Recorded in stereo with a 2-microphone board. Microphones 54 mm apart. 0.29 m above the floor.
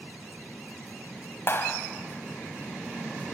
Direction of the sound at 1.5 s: 50° left (ahead or behind).